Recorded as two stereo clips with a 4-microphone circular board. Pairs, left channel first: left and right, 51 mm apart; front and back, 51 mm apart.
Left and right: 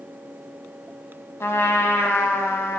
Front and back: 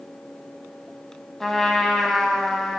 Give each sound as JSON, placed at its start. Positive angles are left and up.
{"t": 1.4, "sound": "a trumpet", "azimuth_deg": 85, "distance_m": 0.6}